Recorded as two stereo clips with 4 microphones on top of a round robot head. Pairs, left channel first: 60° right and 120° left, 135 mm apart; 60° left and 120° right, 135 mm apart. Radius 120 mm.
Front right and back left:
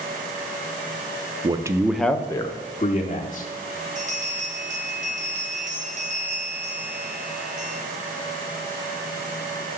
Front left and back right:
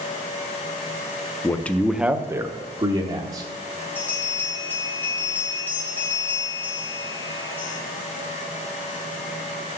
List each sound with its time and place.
1.4 s a man speaking: 115° left, 0.8 m; by 3.5 s 75° right, 1.4 m
4.0 s a bell: 135° left, 3 m